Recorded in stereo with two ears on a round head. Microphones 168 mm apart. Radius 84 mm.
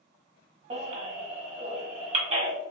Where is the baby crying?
35° right (ahead or behind), 1.4 m.